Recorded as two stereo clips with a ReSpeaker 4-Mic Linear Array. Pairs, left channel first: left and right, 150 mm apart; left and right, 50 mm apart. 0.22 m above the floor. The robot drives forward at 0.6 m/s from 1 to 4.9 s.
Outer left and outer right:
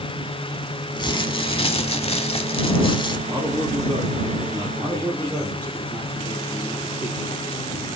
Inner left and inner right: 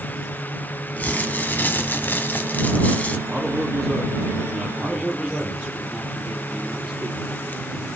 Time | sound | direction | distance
1.0 | crumpling | 30° left (ahead or behind) | 1.0 m
3.3 | a man speaking | 15° left (ahead or behind) | 4 m
4.8 | a man speaking | 5° right (ahead or behind) | 3.5 m